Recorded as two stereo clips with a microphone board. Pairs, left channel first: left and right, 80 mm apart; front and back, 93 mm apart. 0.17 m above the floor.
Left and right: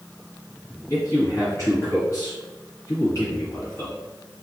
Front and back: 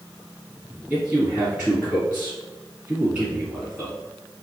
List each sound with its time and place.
0.9 s a man speaking: 110° left, 1.9 m